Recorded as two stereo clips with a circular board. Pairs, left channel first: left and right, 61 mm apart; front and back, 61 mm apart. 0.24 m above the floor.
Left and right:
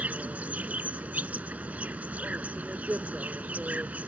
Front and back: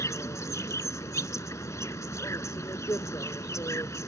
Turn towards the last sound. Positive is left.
turn(degrees=-25)